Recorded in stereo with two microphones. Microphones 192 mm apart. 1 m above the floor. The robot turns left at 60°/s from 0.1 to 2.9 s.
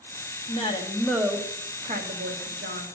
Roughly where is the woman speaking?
Ahead left.